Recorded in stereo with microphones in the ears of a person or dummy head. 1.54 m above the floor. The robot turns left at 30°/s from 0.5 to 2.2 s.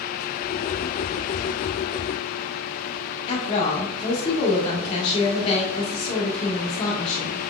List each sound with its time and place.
3.3 s a woman speaking: 35° left (ahead or behind), 1.9 m